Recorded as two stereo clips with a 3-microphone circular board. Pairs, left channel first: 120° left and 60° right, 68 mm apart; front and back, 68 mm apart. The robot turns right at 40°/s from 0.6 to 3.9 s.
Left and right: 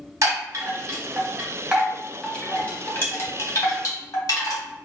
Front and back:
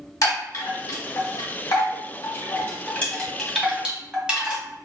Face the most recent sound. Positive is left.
turn(degrees=105)